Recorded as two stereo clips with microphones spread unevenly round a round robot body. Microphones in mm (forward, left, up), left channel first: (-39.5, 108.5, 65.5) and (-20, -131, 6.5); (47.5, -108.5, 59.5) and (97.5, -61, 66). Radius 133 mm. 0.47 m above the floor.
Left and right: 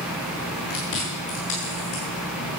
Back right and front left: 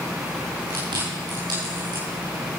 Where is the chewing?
50° left, 7 m.